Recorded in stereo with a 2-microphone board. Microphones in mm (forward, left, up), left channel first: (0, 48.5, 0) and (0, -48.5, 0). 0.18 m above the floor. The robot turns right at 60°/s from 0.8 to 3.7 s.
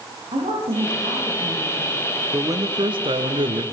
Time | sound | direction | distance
0.3 | a woman speaking | 90° right | 8.5 m
2.3 | a man speaking | 150° right | 2.5 m